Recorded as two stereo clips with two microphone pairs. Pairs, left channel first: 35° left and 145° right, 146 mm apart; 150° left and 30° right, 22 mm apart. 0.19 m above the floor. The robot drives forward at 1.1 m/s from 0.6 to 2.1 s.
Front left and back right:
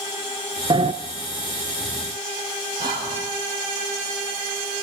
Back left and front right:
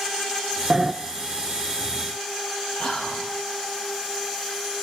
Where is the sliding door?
90° right, 0.6 m; by 0.9 s 115° right, 0.7 m.